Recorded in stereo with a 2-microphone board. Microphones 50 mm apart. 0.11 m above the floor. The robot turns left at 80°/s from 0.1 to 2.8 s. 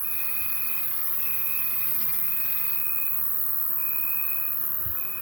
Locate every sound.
0.0 s an insect: 145° left, 1.4 m; by 5.2 s 70° right, 1.4 m